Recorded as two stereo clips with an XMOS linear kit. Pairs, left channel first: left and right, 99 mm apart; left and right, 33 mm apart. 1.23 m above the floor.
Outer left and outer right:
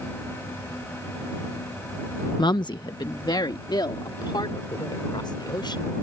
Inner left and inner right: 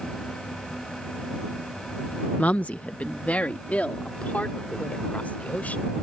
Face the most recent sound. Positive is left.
turn(degrees=50)  # may be behind; listen again after turning